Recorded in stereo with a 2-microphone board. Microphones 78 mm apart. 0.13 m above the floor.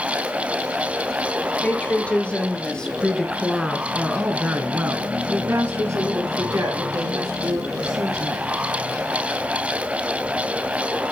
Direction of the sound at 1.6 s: 20° left (ahead or behind).